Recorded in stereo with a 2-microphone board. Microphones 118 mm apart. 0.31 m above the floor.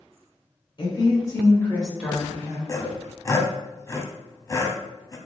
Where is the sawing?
25° left (ahead or behind), 0.5 m.